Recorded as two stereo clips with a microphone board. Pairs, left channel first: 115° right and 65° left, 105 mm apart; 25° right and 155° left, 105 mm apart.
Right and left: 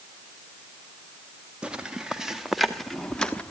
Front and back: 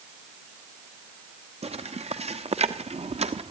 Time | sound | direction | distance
1.6 | footsteps | 150° left | 2.5 m